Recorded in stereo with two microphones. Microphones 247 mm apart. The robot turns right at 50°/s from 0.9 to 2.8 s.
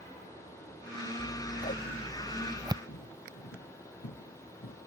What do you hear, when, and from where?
1.2 s scissors: 60° left (ahead or behind); by 2.8 s 20° right (ahead or behind)
2.9 s footsteps: 85° left; by 4.8 s 55° left (ahead or behind)